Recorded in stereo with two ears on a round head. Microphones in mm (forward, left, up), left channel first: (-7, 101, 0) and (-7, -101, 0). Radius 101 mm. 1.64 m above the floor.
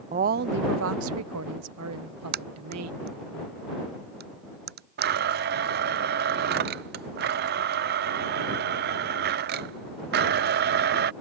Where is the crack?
45° right (ahead or behind).